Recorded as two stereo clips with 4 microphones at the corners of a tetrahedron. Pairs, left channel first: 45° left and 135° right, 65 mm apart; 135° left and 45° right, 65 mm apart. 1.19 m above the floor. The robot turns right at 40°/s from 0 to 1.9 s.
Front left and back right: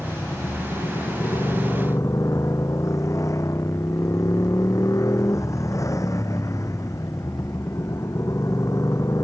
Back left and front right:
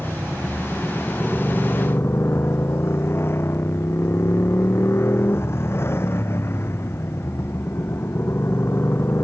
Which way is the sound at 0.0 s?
5° left.